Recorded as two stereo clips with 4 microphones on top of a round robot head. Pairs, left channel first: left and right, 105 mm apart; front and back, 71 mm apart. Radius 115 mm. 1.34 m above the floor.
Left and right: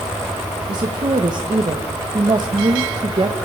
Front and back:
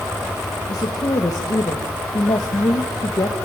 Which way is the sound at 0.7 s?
40° right.